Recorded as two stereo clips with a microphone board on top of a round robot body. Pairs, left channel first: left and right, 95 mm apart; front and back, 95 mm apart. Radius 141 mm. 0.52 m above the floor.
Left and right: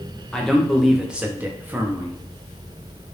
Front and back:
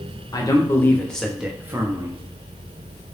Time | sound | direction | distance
0.3 | a man speaking | 10° left | 0.8 m